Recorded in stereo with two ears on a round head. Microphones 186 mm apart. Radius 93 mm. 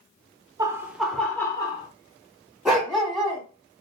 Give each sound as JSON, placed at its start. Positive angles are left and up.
{"t": 0.6, "sound": "laughter", "side_deg": -20, "distance_m": 0.8}
{"t": 2.6, "sound": "a dog barking", "side_deg": -5, "distance_m": 1.2}